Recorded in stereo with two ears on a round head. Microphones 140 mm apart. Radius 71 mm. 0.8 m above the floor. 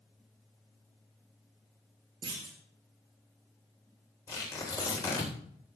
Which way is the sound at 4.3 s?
20° left (ahead or behind).